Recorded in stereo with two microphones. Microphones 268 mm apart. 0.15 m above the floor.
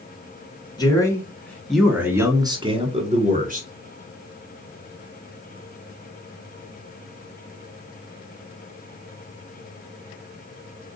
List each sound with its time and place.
0.8 s a man speaking: 15° left (ahead or behind), 1.6 m; by 3.7 s 35° right (ahead or behind), 1.4 m